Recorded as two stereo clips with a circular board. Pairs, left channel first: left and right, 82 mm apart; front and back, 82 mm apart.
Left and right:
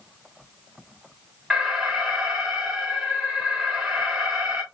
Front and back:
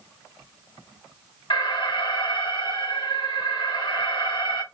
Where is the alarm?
10° right, 1.3 m.